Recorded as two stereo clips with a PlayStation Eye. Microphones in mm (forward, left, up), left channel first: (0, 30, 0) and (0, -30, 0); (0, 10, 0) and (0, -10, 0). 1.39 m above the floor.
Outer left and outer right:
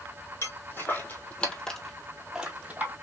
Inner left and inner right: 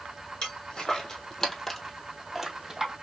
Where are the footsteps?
50° left (ahead or behind), 2 m; by 2.9 s 30° right (ahead or behind), 1.9 m.